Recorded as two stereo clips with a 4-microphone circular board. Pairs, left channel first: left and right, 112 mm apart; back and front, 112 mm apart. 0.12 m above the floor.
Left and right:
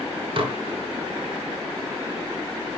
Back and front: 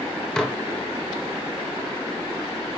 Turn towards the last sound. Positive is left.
turn(degrees=-100)